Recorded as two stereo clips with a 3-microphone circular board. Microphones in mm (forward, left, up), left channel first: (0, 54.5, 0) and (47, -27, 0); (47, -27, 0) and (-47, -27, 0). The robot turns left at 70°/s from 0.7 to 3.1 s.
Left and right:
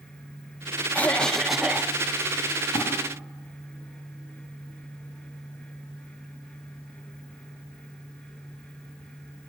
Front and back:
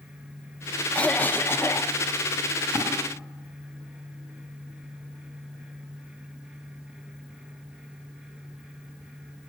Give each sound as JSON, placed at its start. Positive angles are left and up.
{"t": 0.9, "sound": "a cough", "azimuth_deg": 65, "distance_m": 0.7}
{"t": 2.7, "sound": "a splash", "azimuth_deg": 135, "distance_m": 6.0}